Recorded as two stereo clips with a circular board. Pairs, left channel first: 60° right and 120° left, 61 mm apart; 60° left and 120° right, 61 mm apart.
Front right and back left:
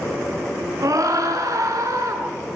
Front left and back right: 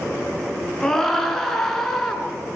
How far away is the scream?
About 5.5 m.